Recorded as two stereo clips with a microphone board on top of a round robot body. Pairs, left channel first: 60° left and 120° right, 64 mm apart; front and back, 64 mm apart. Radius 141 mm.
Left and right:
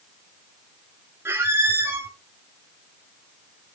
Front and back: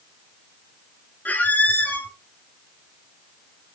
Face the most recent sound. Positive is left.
turn(degrees=-65)